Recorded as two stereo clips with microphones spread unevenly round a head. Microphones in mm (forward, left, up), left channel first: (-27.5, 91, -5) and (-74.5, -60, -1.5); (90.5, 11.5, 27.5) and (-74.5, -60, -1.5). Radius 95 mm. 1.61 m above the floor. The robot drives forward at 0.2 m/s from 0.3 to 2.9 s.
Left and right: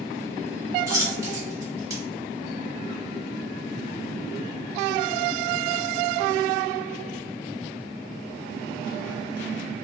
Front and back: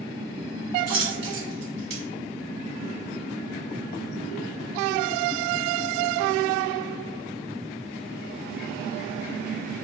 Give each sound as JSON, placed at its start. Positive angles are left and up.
{"t": 0.9, "sound": "a dropped coin", "azimuth_deg": -160, "distance_m": 1.7}